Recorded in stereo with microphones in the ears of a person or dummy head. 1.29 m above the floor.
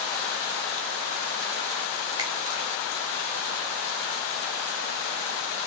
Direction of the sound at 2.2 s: 15° right (ahead or behind).